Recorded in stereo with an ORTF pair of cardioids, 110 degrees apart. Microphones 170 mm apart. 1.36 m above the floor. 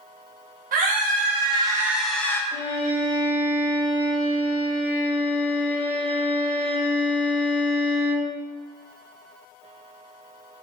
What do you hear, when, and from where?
0.7 s a scream: 60° right, 0.9 m; by 2.4 s 15° left, 0.7 m
2.5 s a violin: 35° left, 1.9 m